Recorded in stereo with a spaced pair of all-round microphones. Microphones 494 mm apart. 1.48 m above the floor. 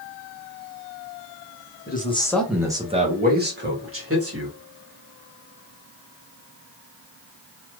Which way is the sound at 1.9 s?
20° left (ahead or behind).